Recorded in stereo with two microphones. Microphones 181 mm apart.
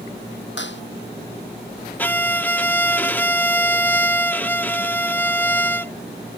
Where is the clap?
90° left.